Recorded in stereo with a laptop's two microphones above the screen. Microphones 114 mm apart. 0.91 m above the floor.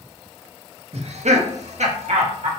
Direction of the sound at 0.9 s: 60° right (ahead or behind).